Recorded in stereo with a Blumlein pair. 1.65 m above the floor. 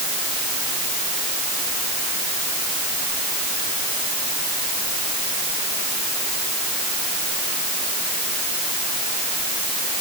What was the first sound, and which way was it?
Only background noise.